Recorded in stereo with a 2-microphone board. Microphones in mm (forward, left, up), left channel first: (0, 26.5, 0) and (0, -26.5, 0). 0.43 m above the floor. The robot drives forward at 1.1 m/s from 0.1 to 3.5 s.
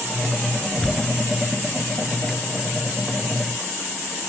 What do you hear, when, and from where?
0.7 s tearing paper: 15° left (ahead or behind), 5.5 m